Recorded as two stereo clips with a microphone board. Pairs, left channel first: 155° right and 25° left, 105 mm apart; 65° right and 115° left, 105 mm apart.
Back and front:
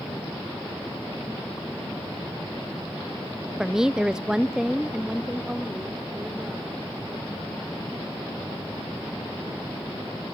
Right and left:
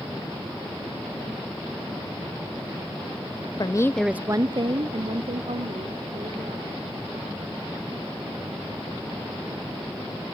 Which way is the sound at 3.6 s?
60° right.